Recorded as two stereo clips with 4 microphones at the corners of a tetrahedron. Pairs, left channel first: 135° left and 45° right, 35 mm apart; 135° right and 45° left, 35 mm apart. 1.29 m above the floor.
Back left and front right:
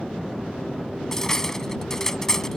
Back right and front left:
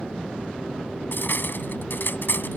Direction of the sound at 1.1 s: 150° right.